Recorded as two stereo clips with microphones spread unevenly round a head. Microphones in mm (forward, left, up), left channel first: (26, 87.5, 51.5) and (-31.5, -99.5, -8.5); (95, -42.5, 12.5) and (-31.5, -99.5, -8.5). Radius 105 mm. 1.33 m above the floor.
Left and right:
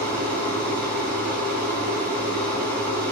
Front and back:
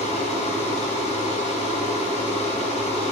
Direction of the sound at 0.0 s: 5° right.